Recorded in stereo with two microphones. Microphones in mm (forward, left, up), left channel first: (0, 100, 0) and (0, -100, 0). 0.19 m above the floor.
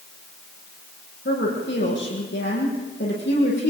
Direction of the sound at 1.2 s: 65° left (ahead or behind).